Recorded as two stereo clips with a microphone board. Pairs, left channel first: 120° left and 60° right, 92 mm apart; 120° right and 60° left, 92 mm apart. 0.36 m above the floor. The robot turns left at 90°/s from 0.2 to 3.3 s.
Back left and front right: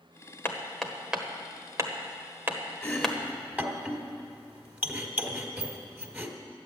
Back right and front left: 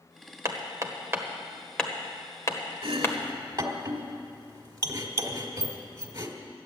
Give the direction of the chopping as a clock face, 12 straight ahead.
10 o'clock.